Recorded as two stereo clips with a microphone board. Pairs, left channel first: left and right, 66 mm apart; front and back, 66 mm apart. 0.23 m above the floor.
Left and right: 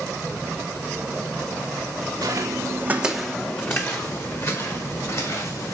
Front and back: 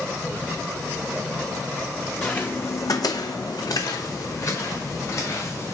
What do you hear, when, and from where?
2.2 s footsteps: 75° right, 1.1 m; by 5.8 s 55° left, 3.5 m